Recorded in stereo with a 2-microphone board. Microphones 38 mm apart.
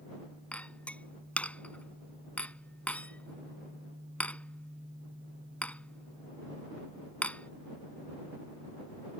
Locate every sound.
0.5 s a clink: 40° left (ahead or behind)